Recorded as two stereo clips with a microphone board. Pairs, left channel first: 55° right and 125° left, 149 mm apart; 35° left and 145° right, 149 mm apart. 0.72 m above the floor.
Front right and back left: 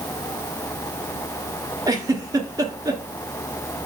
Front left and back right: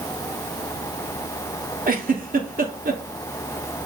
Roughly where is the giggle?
Behind.